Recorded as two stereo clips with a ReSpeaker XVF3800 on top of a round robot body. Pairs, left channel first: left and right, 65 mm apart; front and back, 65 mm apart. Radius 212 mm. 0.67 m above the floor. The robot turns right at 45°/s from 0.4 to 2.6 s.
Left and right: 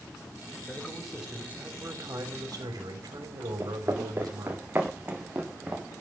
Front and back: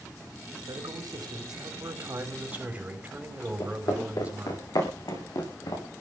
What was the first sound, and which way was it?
A man speaking, 160° left.